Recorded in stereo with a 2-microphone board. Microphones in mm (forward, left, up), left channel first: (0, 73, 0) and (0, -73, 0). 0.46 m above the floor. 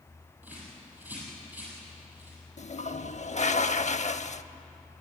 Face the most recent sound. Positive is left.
turn(degrees=55)  # may be behind; listen again after turning